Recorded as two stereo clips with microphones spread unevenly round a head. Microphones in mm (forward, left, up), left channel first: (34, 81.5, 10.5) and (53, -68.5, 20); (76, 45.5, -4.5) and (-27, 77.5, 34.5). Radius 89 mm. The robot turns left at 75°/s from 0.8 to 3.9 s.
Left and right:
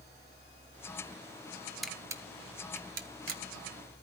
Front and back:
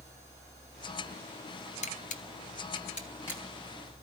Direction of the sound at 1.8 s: 5° left.